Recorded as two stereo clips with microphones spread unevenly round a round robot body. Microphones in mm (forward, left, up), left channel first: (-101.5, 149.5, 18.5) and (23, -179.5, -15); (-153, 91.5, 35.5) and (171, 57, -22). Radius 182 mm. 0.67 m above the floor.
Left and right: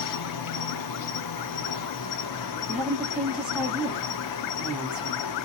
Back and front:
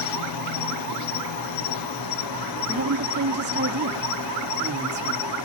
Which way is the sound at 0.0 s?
150° left.